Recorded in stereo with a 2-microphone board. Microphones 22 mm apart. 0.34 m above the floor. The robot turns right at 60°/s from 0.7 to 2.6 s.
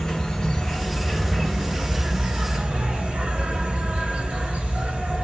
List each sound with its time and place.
0.0 s an insect: 160° left, 1.6 m; by 5.2 s 90° right, 1.6 m